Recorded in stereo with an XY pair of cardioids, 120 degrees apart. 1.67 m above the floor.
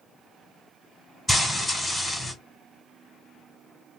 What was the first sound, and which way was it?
Frying, 5° left.